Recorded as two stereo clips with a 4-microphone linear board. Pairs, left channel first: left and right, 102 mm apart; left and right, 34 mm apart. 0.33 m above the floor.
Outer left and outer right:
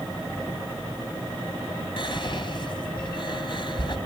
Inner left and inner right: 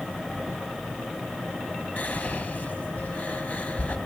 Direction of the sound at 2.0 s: 50° left (ahead or behind).